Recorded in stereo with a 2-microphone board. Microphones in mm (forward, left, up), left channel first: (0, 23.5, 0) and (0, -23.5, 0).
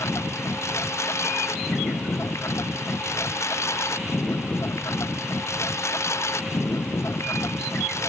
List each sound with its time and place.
0.0 s a lawn mower: 80° left; by 8.1 s 85° left